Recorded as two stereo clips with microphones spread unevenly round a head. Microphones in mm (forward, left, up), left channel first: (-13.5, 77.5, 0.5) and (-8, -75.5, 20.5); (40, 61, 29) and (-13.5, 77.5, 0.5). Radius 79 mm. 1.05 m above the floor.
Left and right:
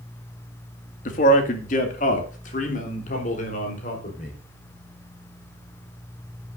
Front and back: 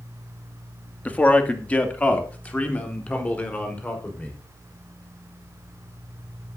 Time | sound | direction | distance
1.1 | a man speaking | 55° left | 2 m